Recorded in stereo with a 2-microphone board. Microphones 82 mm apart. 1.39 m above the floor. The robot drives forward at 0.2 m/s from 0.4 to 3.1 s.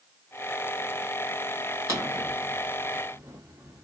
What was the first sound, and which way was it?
A drawer, 40° right (ahead or behind).